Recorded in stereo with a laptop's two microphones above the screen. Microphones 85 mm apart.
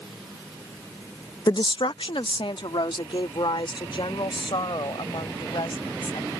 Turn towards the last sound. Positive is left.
turn(degrees=70)  # may be behind; listen again after turning